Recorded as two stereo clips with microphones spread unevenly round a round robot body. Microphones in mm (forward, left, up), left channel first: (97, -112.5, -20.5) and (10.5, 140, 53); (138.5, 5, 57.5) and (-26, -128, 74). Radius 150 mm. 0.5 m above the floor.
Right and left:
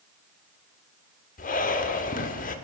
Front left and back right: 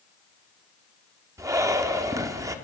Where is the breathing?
65° right, 1.5 m.